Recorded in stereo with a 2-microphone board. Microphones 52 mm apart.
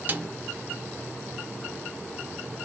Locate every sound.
0.1 s a snare drum: 35° right (ahead or behind), 0.8 m